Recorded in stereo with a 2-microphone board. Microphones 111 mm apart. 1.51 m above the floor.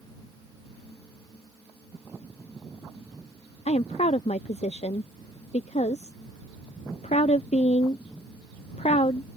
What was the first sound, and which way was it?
A woman speaking, 75° left (ahead or behind).